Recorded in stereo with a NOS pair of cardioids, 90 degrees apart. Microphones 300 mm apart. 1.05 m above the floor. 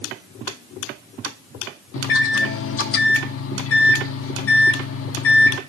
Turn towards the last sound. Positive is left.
turn(degrees=45)